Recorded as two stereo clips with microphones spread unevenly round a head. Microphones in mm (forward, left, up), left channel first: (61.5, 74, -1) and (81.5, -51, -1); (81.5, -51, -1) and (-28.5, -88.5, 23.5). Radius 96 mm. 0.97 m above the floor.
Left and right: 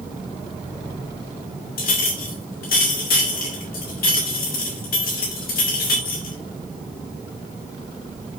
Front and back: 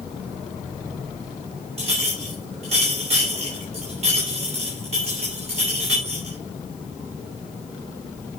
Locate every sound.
1.8 s a clink: 140° left, 2.5 m